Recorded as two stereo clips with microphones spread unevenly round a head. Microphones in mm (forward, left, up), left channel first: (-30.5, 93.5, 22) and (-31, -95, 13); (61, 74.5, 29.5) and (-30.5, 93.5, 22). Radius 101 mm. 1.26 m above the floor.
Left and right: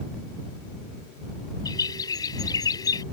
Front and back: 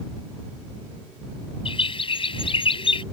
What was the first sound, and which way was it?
A bird, 15° left.